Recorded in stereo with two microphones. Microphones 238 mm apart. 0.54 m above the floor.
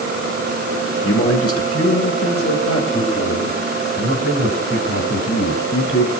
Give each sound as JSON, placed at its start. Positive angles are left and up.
{"t": 1.0, "sound": "a man speaking", "side_deg": 65, "distance_m": 2.0}